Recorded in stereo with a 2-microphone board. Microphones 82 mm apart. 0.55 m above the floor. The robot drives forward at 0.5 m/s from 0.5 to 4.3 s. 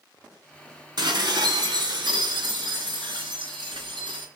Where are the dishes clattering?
60° right (ahead or behind), 3 m; by 4.3 s 85° right, 3 m.